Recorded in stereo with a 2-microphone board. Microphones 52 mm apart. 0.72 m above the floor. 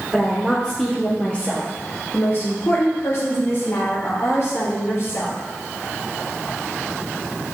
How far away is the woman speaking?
About 1.8 m.